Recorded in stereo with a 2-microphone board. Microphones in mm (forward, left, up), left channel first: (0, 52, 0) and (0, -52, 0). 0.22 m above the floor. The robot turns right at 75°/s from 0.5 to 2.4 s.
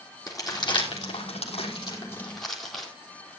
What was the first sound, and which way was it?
Crumpling, 35° left (ahead or behind).